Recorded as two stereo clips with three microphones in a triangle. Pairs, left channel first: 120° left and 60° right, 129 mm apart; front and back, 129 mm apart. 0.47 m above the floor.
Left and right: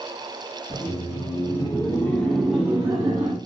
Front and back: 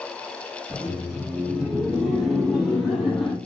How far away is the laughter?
About 1.3 m.